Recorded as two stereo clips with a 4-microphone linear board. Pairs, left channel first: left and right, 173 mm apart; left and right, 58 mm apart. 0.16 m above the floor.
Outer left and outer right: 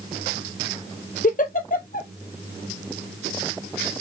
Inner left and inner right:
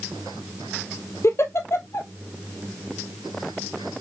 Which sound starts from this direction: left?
A giggle, at 1.2 s.